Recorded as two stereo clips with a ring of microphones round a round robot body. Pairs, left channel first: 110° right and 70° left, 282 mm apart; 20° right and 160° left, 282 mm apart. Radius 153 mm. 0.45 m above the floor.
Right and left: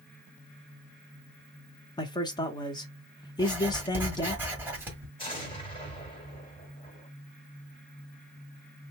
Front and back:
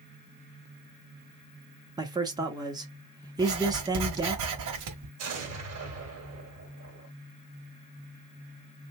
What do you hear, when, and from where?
2.0 s a man speaking: 155° right, 0.8 m
3.4 s writing: 150° left, 1.3 m
5.2 s an explosion: straight behind, 1.8 m